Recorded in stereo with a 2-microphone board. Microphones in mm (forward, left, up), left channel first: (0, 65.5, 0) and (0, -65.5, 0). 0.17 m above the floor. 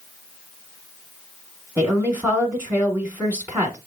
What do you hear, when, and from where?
1.8 s a woman speaking: 15° right (ahead or behind), 1.3 m